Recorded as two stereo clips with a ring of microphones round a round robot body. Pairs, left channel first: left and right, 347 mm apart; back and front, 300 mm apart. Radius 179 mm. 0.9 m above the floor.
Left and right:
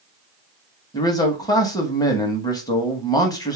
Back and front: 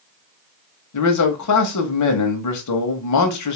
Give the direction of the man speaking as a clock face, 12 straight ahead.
6 o'clock.